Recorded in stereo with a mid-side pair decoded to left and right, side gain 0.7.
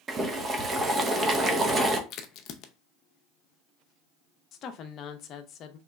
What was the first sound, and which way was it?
Boiling, 25° right.